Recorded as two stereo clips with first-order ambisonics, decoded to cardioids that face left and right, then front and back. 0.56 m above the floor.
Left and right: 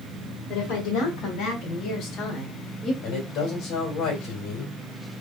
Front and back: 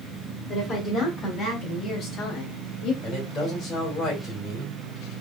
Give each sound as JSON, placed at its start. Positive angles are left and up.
{"t": 0.5, "sound": "a woman speaking", "azimuth_deg": 70, "distance_m": 2.0}
{"t": 3.0, "sound": "a man speaking", "azimuth_deg": 65, "distance_m": 2.5}